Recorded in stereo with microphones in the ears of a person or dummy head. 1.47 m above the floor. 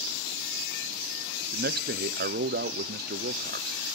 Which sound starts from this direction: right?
A man speaking, at 1.5 s.